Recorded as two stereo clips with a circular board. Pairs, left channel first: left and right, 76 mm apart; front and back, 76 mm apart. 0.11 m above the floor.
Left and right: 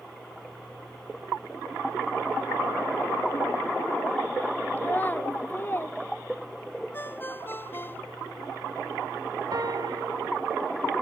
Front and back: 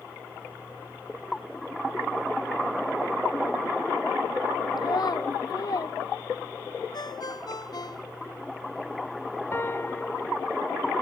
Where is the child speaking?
25° left; by 6.0 s 30° left.